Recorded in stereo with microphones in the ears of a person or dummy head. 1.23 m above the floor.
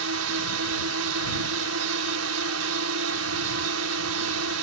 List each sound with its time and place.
0.0 s a drone: 80° right